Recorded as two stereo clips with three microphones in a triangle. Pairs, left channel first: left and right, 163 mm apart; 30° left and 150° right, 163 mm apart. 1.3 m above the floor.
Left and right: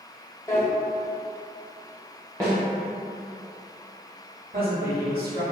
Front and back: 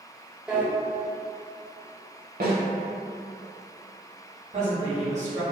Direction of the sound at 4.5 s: 105° right.